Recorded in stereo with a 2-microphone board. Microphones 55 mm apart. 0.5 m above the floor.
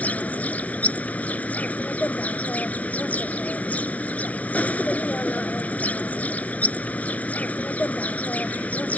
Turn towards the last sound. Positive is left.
turn(degrees=25)  # may be behind; listen again after turning